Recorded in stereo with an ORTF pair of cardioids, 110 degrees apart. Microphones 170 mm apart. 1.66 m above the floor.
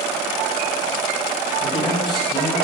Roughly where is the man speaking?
Ahead left.